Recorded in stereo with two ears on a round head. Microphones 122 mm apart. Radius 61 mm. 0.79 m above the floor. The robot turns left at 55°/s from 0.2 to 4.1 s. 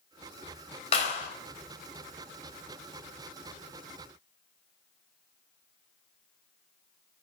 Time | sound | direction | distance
0.9 | a clap | 45° left (ahead or behind) | 3.5 m